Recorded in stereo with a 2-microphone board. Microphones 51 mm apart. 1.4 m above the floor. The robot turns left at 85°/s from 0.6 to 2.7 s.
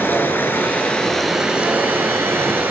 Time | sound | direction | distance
0.0 | running water | 55° left | 2 m